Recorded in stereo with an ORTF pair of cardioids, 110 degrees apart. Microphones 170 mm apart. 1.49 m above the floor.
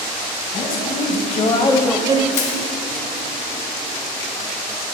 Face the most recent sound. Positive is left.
turn(degrees=45)